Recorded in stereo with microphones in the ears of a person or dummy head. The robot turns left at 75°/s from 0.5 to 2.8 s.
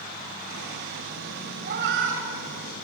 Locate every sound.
1.6 s a cat meowing: 55° right (ahead or behind), 3 m; by 2.9 s 35° right (ahead or behind), 3 m